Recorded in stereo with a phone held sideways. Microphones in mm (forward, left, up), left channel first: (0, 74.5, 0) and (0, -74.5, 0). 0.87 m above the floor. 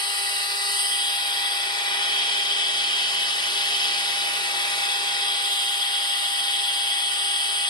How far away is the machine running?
About 0.9 m.